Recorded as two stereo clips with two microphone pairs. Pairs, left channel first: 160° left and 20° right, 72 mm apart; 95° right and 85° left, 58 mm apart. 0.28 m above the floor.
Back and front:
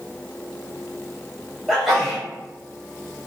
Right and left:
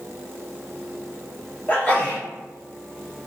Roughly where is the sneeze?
Right.